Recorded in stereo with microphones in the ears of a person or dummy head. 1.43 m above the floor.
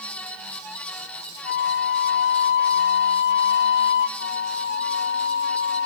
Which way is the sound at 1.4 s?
60° left (ahead or behind).